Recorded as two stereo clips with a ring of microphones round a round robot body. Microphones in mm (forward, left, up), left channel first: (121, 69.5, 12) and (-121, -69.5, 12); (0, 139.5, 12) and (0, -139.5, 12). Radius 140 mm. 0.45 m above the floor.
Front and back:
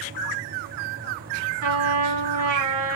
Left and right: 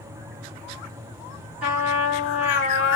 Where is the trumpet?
175° right, 2.5 m.